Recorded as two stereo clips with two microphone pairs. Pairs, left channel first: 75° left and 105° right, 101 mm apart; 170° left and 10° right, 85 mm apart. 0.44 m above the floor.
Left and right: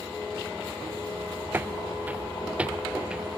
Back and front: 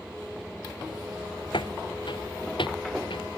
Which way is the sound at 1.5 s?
175° right.